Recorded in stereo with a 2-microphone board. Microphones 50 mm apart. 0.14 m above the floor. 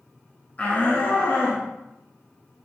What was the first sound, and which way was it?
A shout, 30° left (ahead or behind).